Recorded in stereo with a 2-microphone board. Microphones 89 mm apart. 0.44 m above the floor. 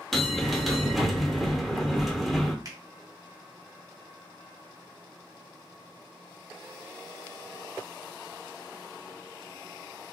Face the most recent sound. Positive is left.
turn(degrees=-40)  # may be behind; listen again after turning